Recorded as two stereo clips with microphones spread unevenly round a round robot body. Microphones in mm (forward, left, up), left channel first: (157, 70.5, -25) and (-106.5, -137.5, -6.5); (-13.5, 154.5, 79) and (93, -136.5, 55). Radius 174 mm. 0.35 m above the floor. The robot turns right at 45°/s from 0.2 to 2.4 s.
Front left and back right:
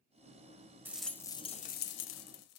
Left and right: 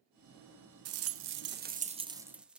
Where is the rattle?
55° right, 0.9 m; by 2.6 s 15° left, 0.9 m.